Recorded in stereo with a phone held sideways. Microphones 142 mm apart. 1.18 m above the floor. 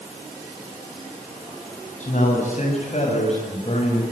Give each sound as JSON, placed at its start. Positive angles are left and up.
{"t": 2.0, "sound": "a man speaking", "side_deg": 55, "distance_m": 8.0}